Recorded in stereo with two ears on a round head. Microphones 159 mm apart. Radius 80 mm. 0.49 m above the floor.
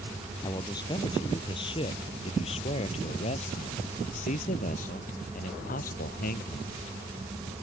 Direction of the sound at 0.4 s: 25° left (ahead or behind).